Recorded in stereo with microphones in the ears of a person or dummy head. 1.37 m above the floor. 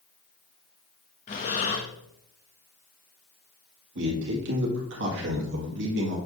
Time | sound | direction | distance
1.3 | breathing | 30° left (ahead or behind) | 0.8 m
4.0 | a man speaking | 70° right (ahead or behind) | 1.9 m